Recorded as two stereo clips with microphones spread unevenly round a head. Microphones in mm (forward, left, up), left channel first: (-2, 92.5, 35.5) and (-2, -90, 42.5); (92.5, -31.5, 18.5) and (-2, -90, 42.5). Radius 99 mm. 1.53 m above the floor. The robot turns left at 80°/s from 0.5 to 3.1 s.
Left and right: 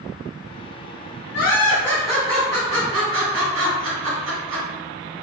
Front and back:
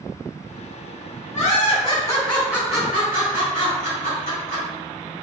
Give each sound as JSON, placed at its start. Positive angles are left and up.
{"t": 1.3, "sound": "laughter", "azimuth_deg": 60, "distance_m": 2.0}